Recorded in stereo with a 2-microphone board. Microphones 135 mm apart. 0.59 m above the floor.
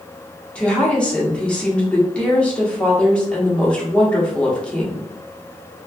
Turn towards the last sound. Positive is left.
turn(degrees=10)  # may be behind; listen again after turning